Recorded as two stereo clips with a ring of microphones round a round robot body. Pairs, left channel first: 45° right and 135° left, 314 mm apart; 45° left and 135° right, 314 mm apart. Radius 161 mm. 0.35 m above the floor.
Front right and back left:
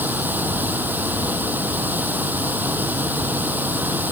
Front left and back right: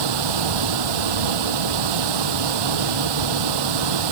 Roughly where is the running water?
Behind right.